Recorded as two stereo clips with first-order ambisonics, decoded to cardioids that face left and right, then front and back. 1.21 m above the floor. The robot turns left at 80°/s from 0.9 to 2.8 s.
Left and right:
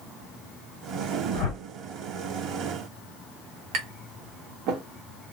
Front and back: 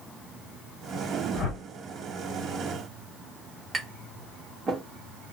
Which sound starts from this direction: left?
A whoosh, at 1.3 s.